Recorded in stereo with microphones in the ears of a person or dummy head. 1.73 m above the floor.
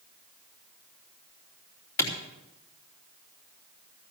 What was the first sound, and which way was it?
A clap, 15° left (ahead or behind).